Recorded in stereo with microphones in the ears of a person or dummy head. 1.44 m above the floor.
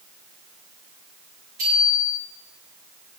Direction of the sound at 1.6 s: 40° right (ahead or behind).